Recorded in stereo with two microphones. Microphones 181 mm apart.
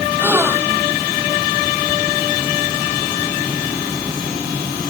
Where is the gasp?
10° right (ahead or behind).